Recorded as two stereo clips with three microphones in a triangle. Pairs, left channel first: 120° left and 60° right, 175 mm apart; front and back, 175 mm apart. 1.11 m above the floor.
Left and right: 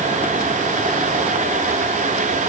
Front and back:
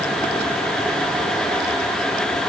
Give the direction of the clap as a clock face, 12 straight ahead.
I don't hear a clap.